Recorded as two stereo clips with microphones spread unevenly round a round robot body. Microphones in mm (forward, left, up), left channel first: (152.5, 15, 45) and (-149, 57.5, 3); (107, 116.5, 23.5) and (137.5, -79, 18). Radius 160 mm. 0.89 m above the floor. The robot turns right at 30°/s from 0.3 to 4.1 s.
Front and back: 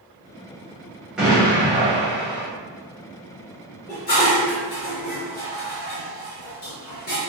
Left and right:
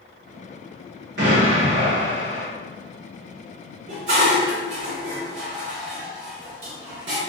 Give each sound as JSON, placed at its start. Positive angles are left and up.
{"t": 1.2, "sound": "an explosion", "azimuth_deg": -105, "distance_m": 1.0}
{"t": 3.9, "sound": "dishes clattering", "azimuth_deg": -80, "distance_m": 1.3}